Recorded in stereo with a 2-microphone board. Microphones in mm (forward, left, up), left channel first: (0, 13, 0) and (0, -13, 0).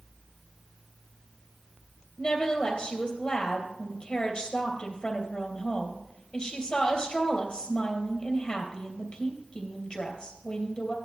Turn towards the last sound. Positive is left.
turn(degrees=45)  # may be behind; listen again after turning